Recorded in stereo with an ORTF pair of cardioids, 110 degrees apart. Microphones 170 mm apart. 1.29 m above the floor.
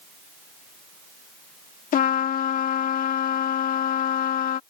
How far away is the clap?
I don't hear a clap.